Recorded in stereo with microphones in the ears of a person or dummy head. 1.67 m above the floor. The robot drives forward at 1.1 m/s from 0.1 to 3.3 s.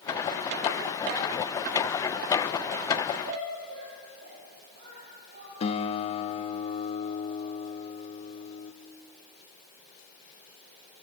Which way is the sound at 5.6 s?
40° left (ahead or behind).